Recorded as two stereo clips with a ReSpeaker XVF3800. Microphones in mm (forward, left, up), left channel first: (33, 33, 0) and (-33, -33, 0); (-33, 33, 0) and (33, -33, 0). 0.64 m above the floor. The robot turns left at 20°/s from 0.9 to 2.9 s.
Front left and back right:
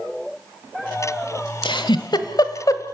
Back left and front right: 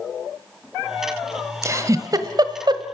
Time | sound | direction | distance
1.6 | a giggle | 15° left | 1.3 m